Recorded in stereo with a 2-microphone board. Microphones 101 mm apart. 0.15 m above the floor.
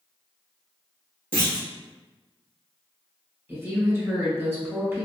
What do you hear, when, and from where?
1.3 s a clunk: 15° left (ahead or behind), 1.3 m
3.5 s a woman speaking: 25° right (ahead or behind), 1.1 m